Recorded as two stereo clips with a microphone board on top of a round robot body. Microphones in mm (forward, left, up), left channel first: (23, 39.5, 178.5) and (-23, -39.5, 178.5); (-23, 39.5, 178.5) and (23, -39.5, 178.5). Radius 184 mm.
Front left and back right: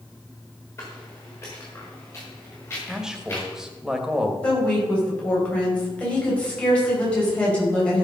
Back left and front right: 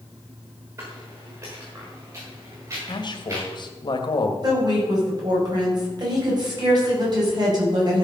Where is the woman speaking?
15° right, 5 m.